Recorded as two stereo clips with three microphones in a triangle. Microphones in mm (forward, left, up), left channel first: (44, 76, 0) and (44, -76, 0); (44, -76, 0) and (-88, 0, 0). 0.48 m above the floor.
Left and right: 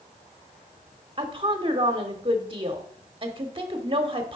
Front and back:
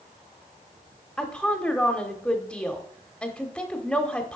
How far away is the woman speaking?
About 0.9 m.